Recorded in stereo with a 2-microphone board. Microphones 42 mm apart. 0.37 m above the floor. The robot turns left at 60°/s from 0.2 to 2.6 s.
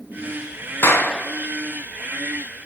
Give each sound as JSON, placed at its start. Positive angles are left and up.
{"t": 0.8, "sound": "a clap", "side_deg": 70, "distance_m": 3.5}